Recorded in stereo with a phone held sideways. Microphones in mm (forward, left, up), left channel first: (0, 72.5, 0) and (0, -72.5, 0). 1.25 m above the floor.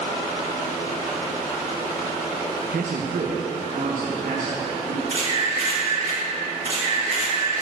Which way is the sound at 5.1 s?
65° right (ahead or behind).